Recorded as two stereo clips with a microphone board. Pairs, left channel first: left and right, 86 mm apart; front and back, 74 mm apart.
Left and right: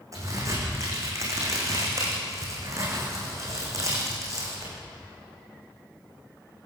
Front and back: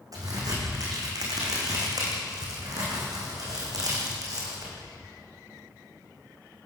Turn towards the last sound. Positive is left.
turn(degrees=-140)